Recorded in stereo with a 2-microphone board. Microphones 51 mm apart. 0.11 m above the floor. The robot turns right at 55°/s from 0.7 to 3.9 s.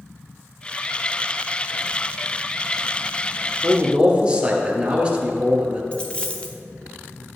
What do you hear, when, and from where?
3.6 s a man speaking: 30° right (ahead or behind), 1.8 m; by 5.8 s 20° right (ahead or behind), 1.8 m
5.9 s a dropped coin: 20° left (ahead or behind), 1.2 m